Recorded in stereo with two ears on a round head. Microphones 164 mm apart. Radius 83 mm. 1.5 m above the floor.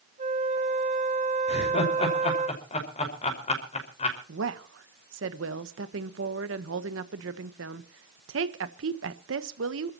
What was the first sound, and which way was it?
A flute, 40° right (ahead or behind).